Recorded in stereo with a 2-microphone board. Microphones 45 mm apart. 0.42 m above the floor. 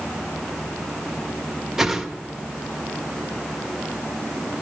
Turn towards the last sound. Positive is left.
turn(degrees=-10)  # may be behind; listen again after turning